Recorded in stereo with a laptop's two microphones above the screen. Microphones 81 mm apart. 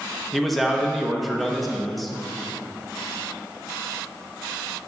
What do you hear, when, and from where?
0.3 s a man speaking: centre (ahead or behind), 1.1 m